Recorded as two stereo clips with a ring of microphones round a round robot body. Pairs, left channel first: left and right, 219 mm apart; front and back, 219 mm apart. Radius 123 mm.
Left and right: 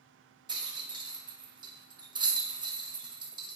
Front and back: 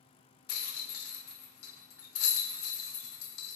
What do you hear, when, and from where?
0.5 s a rattle: 20° right, 0.6 m